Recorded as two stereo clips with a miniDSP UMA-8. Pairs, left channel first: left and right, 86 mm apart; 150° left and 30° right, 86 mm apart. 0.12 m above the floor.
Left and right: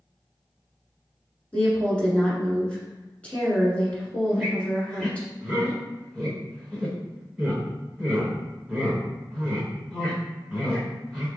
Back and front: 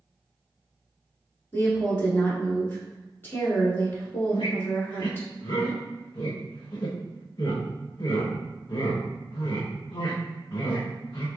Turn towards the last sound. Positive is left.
turn(degrees=-175)